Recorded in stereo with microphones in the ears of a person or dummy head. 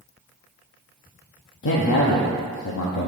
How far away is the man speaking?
About 0.7 m.